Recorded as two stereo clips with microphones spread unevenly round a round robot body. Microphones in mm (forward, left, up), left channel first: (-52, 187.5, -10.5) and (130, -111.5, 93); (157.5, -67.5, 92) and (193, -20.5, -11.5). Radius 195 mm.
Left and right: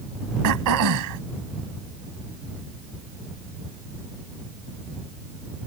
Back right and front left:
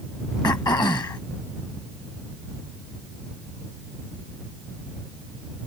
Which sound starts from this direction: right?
Throat clearing, at 0.4 s.